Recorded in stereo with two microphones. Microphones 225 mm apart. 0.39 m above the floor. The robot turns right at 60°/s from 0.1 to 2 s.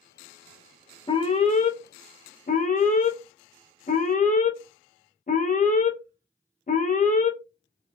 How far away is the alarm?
About 0.5 m.